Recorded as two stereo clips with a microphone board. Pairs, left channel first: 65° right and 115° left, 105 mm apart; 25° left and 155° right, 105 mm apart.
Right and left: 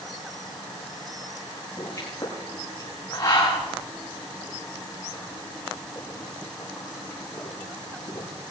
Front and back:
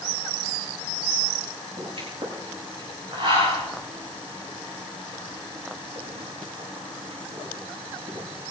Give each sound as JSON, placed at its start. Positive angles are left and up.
{"t": 1.8, "sound": "a pop", "azimuth_deg": -125, "distance_m": 9.0}